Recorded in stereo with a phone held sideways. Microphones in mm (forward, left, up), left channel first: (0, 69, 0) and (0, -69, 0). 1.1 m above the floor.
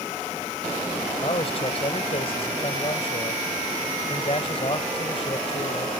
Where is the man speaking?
45° left (ahead or behind).